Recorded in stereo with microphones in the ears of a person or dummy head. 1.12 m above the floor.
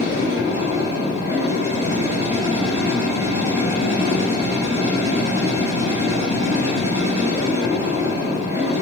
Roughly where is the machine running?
Centre.